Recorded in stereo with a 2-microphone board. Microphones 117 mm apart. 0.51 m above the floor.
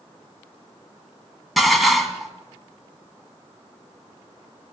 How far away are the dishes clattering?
About 2.5 m.